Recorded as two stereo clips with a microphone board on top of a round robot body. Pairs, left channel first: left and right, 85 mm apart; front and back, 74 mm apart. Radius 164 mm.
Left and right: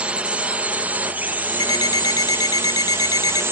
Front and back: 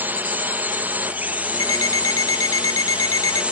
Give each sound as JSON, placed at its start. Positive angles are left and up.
{"t": 0.0, "sound": "a drone", "azimuth_deg": -150}
{"t": 1.6, "sound": "an alarm clock", "azimuth_deg": 45}